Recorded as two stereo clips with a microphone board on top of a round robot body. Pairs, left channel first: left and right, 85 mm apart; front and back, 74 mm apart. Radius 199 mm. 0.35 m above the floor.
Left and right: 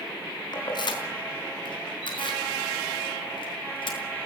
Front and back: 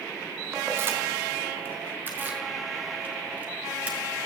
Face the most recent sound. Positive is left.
turn(degrees=110)